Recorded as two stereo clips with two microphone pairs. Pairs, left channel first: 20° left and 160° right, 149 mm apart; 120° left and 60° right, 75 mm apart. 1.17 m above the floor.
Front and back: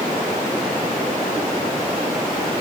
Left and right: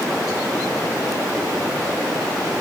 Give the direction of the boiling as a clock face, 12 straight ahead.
No boiling in this recording.